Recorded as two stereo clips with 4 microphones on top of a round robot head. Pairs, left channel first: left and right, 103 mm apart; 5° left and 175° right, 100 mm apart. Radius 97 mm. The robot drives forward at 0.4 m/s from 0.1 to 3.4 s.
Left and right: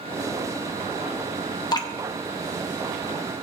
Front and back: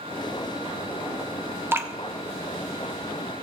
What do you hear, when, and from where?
1.7 s dripping: 125° left, 1.2 m; by 1.9 s 130° left, 1.2 m